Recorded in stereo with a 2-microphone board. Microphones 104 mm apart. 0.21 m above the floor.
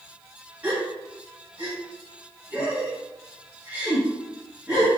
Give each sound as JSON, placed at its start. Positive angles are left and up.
{"t": 0.6, "sound": "a gasp", "side_deg": -20, "distance_m": 1.0}